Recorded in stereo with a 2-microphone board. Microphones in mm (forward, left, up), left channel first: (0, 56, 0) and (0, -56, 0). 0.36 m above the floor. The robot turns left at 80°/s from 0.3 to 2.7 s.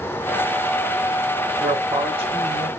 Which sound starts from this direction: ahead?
A man speaking, at 1.6 s.